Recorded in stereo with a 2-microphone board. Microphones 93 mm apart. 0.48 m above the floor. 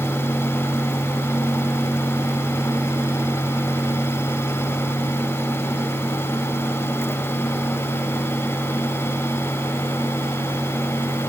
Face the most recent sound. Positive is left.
No sound to turn to.